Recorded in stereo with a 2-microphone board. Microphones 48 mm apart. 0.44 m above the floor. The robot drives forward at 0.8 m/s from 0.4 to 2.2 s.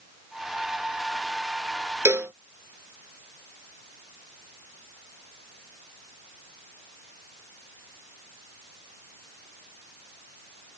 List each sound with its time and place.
2.0 s a cowbell: 80° right